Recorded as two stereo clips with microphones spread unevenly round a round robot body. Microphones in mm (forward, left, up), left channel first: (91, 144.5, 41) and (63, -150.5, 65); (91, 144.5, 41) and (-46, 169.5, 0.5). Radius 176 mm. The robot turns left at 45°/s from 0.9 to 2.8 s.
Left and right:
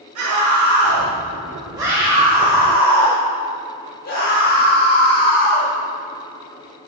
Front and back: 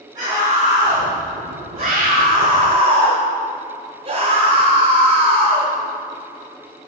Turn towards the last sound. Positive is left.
turn(degrees=140)